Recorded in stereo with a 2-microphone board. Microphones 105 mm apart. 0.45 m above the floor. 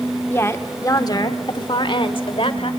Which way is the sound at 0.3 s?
20° left (ahead or behind).